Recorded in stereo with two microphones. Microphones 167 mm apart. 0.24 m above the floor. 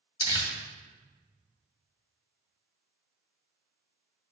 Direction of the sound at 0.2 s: 20° left (ahead or behind).